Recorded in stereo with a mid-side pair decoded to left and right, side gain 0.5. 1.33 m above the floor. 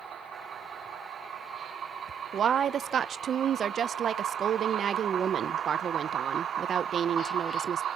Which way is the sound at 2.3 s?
50° right.